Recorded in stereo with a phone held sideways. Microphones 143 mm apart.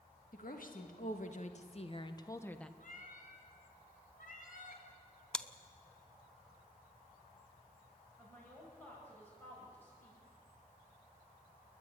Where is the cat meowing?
65° left (ahead or behind), 2.5 m.